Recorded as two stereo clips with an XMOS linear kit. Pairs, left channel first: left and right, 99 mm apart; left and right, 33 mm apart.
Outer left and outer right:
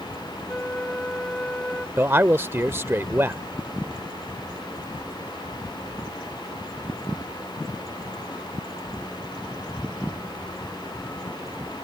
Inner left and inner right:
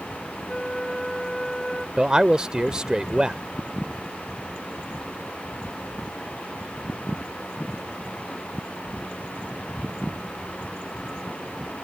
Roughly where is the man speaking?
Right.